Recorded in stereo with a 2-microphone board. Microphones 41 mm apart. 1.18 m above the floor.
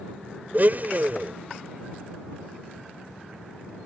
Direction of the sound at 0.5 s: 45° right (ahead or behind).